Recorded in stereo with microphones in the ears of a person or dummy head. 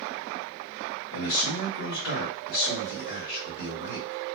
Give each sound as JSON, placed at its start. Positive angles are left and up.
{"t": 1.1, "sound": "a man speaking", "side_deg": 70, "distance_m": 1.7}